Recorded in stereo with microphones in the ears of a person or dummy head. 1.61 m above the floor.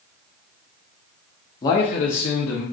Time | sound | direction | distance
1.6 | a man speaking | 20° left (ahead or behind) | 0.6 m